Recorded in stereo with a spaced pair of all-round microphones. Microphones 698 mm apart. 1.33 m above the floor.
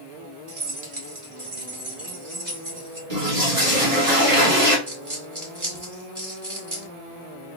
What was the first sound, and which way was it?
Keys jangling, 65° right (ahead or behind).